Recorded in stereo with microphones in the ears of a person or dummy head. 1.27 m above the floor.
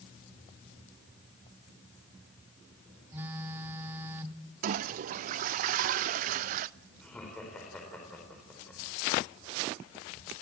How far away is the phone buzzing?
About 1.0 m.